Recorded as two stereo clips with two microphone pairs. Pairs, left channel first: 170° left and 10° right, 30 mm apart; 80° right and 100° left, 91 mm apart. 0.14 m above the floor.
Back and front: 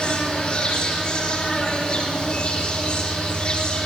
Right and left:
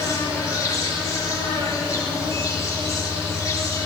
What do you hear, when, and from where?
0.0 s an insect: 130° right, 9 m